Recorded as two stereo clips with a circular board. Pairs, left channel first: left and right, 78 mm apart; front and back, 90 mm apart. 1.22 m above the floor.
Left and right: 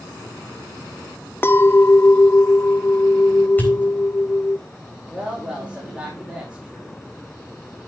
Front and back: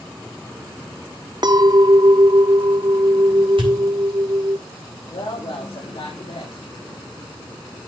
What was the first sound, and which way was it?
A clink, 150° left.